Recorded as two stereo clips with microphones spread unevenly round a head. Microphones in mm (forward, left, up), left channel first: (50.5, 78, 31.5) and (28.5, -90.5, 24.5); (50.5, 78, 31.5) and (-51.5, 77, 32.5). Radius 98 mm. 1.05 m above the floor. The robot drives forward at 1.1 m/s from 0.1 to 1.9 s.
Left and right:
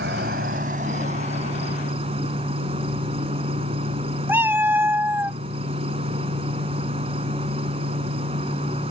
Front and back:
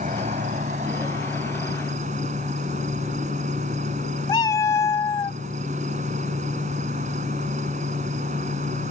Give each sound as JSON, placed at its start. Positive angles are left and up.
{"t": 0.0, "sound": "an insect", "azimuth_deg": -140}
{"t": 4.3, "sound": "a cat meowing", "azimuth_deg": -25}